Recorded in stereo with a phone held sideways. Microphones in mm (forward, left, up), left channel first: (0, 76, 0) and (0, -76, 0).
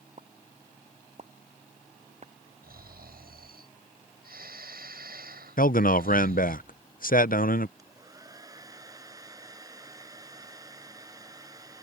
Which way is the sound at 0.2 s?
50° right (ahead or behind).